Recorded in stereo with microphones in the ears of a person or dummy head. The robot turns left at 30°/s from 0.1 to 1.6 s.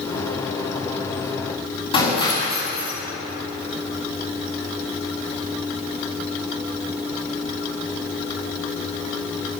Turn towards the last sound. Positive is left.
turn(degrees=25)  # may be behind; listen again after turning